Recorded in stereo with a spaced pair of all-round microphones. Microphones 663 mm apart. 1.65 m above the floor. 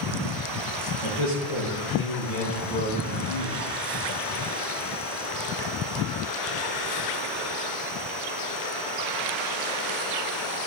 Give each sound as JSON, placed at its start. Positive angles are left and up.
{"t": 1.0, "sound": "a man speaking", "side_deg": 45, "distance_m": 2.0}